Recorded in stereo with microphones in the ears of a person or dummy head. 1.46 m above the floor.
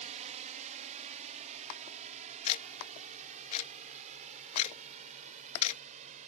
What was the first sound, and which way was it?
A drone, 35° right (ahead or behind).